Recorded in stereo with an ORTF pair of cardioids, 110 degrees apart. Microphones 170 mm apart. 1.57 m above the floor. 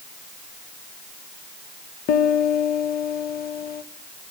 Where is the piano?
65° left, 2.5 m.